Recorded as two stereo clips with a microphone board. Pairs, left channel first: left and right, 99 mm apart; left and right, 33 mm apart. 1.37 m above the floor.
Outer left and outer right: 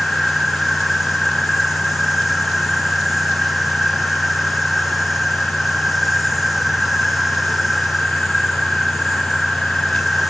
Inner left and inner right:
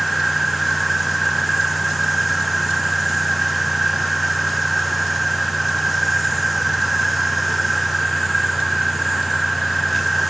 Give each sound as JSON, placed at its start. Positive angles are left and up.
{"t": 0.0, "sound": "an insect", "side_deg": -5}